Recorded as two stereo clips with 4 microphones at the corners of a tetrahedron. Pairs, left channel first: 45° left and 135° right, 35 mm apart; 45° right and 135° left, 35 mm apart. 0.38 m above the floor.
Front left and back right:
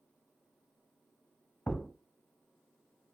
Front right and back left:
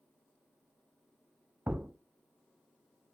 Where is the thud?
105° left, 0.8 m.